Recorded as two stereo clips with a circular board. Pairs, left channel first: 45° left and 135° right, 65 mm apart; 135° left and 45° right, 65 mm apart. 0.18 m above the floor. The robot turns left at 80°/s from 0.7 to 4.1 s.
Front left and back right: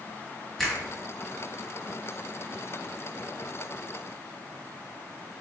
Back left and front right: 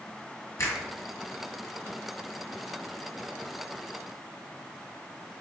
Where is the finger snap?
130° left, 1.6 m; by 0.8 s 125° left, 1.6 m.